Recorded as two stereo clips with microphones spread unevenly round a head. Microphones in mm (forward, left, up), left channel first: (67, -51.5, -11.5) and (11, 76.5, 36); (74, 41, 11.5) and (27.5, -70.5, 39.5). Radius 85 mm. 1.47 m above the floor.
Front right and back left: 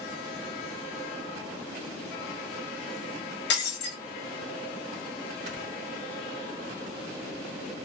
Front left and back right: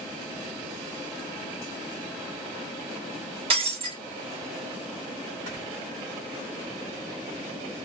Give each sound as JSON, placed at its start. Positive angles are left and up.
{"t": 3.5, "sound": "breaking glass", "azimuth_deg": -85, "distance_m": 1.3}
{"t": 5.5, "sound": "snoring", "azimuth_deg": 140, "distance_m": 1.1}